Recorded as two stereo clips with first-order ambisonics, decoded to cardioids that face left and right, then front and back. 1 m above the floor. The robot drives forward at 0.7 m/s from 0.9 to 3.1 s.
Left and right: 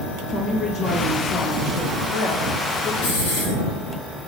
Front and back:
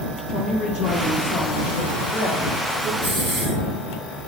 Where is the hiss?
120° left, 4 m.